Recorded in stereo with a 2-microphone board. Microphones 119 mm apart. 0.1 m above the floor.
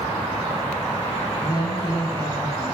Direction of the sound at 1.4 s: 35° left (ahead or behind).